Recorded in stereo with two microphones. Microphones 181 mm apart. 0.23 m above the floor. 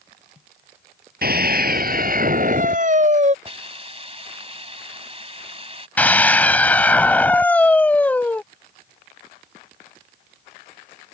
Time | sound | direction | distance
1.2 | a scream | 65° right (ahead or behind) | ?
3.5 | a hiss | 35° right (ahead or behind) | ?
6.0 | a scream | 10° left (ahead or behind) | ?